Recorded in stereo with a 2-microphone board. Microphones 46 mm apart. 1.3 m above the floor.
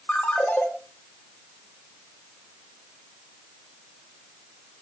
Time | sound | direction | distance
0.1 | a ringtone | 25° left (ahead or behind) | 3.5 m